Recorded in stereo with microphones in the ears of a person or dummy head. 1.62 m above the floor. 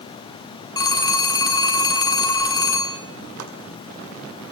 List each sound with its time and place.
0.8 s a phone ringing: 20° left (ahead or behind), 2 m
3.4 s chopping: 80° right, 5.5 m